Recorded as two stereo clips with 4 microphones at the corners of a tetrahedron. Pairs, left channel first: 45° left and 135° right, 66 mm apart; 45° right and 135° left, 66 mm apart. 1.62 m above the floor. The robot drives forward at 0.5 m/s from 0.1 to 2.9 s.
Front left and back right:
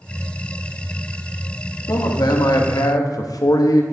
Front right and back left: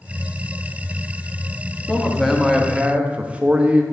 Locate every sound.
1.9 s a man speaking: 40° left, 1.0 m; by 3.8 s 65° left, 0.7 m